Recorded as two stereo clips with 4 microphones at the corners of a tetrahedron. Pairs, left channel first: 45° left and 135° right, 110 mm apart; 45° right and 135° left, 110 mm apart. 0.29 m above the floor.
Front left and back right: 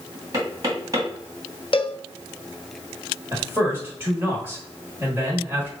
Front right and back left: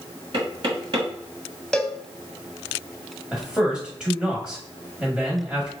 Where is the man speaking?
160° right, 1.3 m.